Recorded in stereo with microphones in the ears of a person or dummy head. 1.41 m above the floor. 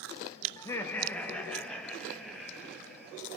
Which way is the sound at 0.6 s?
20° left (ahead or behind).